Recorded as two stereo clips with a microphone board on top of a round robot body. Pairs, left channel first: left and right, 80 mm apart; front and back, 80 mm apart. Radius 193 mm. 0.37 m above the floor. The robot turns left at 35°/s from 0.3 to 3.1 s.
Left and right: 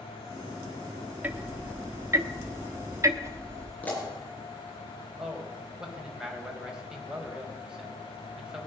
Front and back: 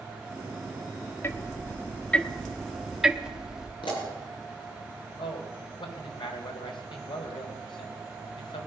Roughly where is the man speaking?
Ahead.